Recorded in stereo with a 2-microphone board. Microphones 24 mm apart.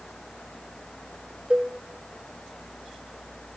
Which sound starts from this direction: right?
A cowbell, at 1.5 s.